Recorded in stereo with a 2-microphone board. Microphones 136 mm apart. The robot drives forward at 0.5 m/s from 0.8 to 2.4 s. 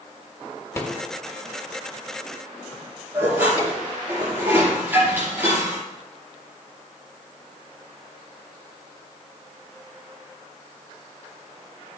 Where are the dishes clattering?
15° right (ahead or behind), 5.5 m.